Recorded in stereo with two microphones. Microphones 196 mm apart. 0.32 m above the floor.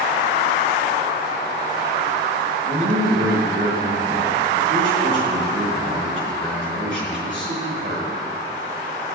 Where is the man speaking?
75° right (ahead or behind), 4 m.